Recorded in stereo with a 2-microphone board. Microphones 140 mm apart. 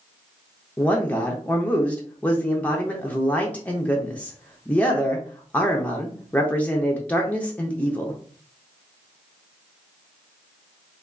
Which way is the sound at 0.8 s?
10° left (ahead or behind).